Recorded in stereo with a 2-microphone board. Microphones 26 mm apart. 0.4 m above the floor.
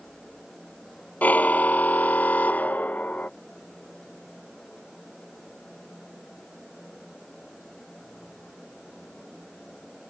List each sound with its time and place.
1.2 s a car horn: 85° left